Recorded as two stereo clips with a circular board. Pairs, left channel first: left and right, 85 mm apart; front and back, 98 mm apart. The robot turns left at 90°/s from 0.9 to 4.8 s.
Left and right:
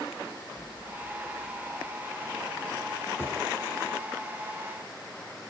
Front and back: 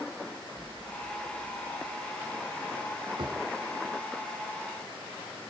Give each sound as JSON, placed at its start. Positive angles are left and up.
{"t": 0.6, "sound": "an explosion", "azimuth_deg": -85}
{"t": 3.2, "sound": "a drawer", "azimuth_deg": 155}